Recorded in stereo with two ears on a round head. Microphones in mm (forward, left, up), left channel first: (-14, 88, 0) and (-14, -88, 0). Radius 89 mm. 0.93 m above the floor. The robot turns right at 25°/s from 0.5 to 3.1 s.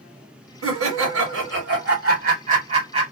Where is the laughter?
90° right, 1.5 m; by 3.0 s 25° right, 1.5 m.